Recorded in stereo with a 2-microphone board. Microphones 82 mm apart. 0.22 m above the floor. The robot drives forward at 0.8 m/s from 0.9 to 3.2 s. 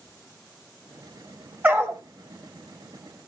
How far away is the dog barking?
About 1.7 m.